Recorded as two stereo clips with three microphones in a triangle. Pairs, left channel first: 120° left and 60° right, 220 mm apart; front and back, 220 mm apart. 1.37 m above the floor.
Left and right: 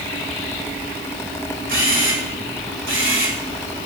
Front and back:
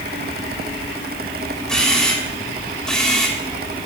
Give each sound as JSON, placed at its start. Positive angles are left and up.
{"t": 1.7, "sound": "a camera shutter", "azimuth_deg": -85, "distance_m": 2.0}